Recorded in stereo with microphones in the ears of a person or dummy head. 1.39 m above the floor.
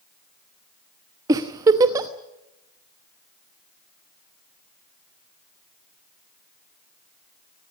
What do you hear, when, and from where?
1.3 s a giggle: 15° right (ahead or behind), 1.0 m